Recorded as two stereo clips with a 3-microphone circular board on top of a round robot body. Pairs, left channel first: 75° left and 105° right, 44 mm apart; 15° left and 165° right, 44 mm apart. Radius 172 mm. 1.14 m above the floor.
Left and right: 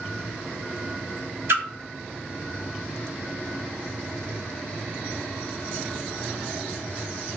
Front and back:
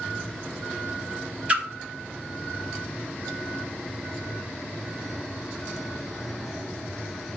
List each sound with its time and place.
1.5 s a splash: 110° right, 1.1 m